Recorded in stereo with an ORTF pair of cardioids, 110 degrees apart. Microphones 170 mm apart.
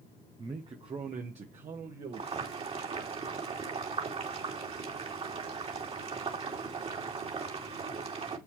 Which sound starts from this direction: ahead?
A man speaking, at 0.4 s.